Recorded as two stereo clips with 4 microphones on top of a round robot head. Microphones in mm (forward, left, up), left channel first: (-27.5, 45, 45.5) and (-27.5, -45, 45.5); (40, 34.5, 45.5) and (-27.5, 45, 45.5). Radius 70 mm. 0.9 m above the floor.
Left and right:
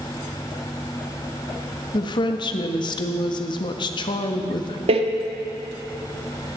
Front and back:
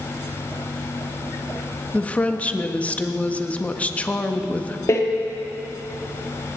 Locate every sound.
1.9 s a woman speaking: 60° left, 1.3 m
4.9 s a door slam: 65° right, 1.1 m